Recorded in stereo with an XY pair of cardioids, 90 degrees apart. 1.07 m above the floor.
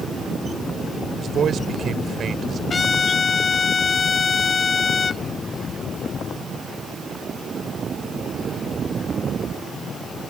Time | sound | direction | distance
1.2 | a man speaking | 60° right | ?
2.7 | a trumpet | 40° left | ?